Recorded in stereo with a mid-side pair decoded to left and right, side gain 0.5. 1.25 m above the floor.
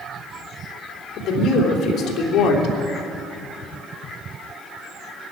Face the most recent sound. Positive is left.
turn(degrees=65)